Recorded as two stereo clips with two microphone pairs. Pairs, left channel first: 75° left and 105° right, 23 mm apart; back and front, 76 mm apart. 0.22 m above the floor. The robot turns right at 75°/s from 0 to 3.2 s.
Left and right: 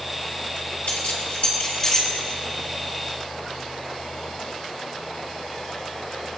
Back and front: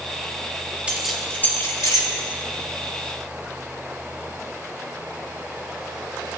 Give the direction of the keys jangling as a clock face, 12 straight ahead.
10 o'clock.